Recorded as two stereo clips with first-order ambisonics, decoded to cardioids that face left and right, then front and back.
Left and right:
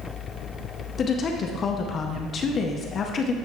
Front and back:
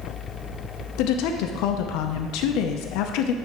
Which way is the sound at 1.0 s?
25° left.